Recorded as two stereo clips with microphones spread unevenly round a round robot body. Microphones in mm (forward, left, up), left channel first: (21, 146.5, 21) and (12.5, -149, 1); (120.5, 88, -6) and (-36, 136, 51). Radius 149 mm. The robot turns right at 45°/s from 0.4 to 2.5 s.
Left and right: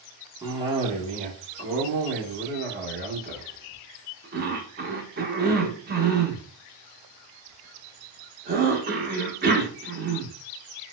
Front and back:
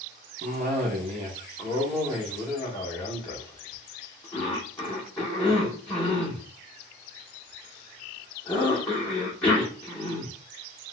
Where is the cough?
160° right, 0.8 m; by 10.3 s 70° right, 0.8 m.